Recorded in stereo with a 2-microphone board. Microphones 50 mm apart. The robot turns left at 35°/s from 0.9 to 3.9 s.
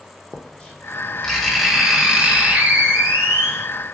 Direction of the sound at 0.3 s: 20° left.